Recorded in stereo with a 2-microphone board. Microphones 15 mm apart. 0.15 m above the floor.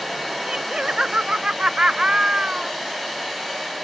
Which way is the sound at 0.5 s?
75° right (ahead or behind).